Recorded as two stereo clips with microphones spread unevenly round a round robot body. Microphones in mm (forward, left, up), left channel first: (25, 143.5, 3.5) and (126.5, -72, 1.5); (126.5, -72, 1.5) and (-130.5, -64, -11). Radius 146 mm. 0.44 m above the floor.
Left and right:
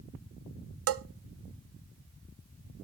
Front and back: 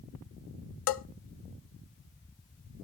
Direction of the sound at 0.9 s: 35° right.